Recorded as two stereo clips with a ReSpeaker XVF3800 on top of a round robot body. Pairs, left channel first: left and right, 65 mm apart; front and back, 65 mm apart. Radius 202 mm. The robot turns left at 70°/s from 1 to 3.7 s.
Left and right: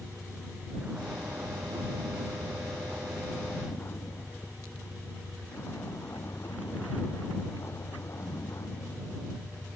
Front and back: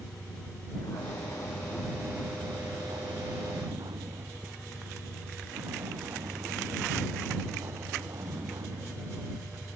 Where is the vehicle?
15° right; by 9.8 s 135° left.